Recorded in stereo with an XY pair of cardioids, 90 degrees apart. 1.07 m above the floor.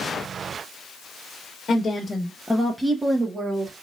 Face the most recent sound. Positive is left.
turn(degrees=-40)